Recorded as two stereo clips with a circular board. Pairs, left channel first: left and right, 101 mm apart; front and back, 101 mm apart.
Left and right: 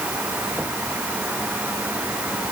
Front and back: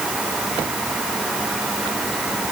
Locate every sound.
Only background noise.